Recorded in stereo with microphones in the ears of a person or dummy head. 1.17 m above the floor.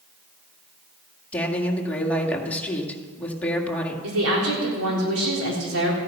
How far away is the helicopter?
No helicopter in this recording.